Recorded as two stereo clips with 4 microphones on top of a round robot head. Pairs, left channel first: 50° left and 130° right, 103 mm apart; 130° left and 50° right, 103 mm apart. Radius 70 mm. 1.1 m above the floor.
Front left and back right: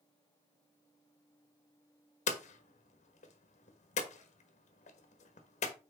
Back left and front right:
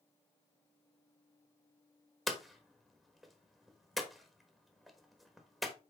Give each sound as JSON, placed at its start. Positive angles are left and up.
{"t": 2.3, "sound": "hammering", "azimuth_deg": 40, "distance_m": 1.2}